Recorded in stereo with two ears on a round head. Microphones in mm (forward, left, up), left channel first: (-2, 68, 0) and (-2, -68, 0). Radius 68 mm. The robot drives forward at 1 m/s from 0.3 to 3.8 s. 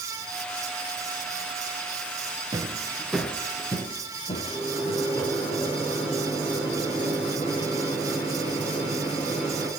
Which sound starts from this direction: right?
Footsteps, at 2.5 s.